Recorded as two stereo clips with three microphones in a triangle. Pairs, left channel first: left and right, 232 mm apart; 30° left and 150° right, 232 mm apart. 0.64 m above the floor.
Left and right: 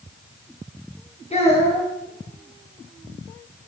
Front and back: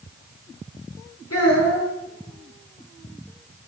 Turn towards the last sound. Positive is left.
turn(degrees=30)